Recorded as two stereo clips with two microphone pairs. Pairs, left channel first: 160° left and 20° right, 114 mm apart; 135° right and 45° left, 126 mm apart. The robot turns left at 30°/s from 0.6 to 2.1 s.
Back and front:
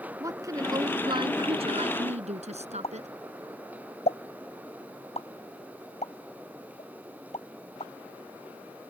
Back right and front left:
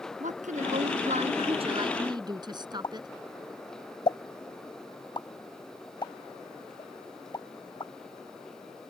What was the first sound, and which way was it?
A woman speaking, 35° left.